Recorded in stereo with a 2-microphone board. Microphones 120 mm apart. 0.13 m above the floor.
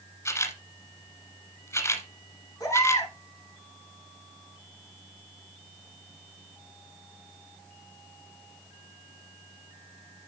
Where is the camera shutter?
25° left (ahead or behind), 1.2 m.